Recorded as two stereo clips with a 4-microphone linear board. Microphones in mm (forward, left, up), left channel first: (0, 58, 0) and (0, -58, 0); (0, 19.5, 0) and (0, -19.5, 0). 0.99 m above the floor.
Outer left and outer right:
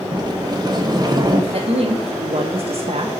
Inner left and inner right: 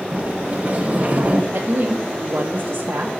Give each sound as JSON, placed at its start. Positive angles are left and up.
{"t": 0.1, "sound": "a sliding door", "side_deg": -35, "distance_m": 0.7}
{"t": 1.5, "sound": "a woman speaking", "side_deg": -60, "distance_m": 0.7}